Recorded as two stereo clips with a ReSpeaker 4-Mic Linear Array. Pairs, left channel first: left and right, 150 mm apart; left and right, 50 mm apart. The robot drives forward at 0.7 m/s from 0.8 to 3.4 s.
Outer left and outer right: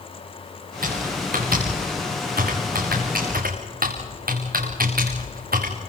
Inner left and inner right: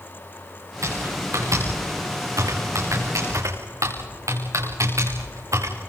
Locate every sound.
0.8 s typing on a keyboard: 75° right (ahead or behind), 5.5 m; by 5.7 s 85° right, 5.5 m